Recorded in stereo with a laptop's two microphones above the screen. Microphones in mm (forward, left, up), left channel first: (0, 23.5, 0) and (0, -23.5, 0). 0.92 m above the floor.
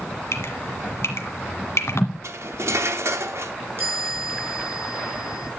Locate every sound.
0.3 s dripping: 65° left (ahead or behind), 1.6 m
2.2 s cutlery clinking: 70° right (ahead or behind), 0.9 m
3.8 s a chime: 50° right (ahead or behind), 4.5 m